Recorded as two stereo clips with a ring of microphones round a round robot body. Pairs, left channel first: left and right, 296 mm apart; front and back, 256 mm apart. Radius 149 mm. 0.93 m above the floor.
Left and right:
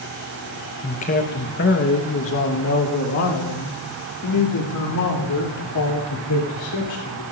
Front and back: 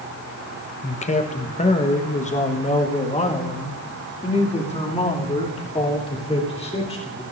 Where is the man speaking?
40° left, 1.0 m; by 7.2 s 65° left, 4 m.